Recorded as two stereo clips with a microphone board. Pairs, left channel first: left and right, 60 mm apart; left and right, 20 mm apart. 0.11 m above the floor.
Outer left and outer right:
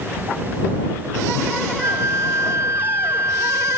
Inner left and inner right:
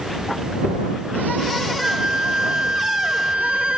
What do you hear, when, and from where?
1.8 s a flute: 60° right (ahead or behind)